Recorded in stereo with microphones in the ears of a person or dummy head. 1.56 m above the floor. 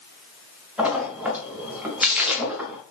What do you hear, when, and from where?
0.8 s a splash: 5° right (ahead or behind), 0.7 m